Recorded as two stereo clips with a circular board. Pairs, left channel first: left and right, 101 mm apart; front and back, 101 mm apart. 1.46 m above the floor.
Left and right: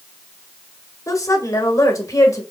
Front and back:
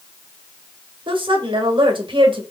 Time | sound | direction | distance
1.1 | a woman speaking | 150° left | 1.5 m